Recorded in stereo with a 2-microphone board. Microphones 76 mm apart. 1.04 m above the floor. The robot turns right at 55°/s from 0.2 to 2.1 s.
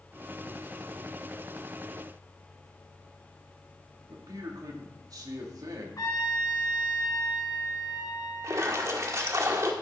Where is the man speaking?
55° right (ahead or behind), 2.5 m.